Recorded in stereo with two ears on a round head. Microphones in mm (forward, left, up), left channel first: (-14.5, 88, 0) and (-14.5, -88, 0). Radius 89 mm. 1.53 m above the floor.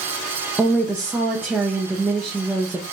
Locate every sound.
0.6 s a woman speaking: 5° right (ahead or behind), 0.7 m